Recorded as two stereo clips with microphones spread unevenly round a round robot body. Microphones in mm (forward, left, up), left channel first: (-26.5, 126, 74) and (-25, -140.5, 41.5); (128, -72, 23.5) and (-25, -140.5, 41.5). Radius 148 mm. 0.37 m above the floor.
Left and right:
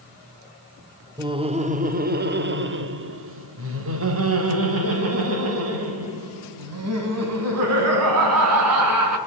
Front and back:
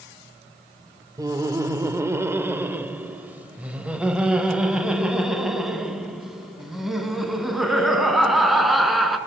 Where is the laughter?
105° right, 1.0 m; by 9.2 s 65° right, 5 m.